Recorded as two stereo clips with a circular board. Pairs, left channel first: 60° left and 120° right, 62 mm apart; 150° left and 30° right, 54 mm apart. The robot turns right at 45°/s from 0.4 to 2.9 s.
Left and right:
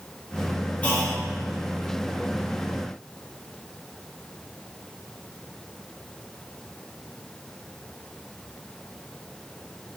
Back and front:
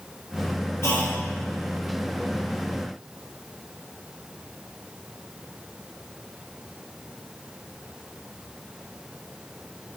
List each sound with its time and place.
0.8 s a clunk: 120° left, 0.8 m; by 1.2 s 140° left, 0.8 m